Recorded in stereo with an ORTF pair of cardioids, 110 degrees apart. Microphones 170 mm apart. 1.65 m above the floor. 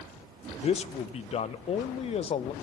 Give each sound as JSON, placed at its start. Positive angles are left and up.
{"t": 0.6, "sound": "a man speaking", "azimuth_deg": 35, "distance_m": 0.6}